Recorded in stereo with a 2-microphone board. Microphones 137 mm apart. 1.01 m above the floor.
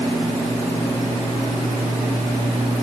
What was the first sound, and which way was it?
Only background noise.